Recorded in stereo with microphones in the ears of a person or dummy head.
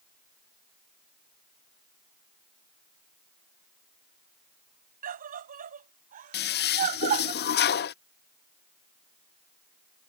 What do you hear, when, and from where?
5.0 s a scream: 55° right (ahead or behind); by 7.3 s 50° right (ahead or behind)
6.3 s a toilet flushing: 45° left (ahead or behind)